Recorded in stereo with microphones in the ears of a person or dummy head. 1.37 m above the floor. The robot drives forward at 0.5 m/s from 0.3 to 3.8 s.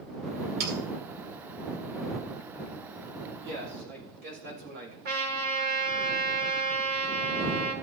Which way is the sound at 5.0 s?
55° right (ahead or behind).